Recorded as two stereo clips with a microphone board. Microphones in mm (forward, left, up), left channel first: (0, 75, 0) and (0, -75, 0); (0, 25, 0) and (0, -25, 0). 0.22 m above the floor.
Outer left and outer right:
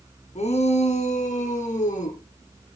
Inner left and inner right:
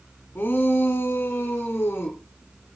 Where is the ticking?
I don't hear ticking.